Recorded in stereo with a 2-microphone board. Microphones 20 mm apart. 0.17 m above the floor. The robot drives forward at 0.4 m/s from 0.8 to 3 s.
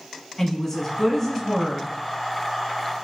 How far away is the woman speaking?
About 1.1 m.